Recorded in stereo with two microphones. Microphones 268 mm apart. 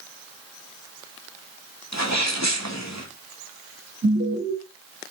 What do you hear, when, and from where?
1.9 s a sneeze: 80° left, 2.5 m
4.0 s an alarm: 70° right (ahead or behind), 3.5 m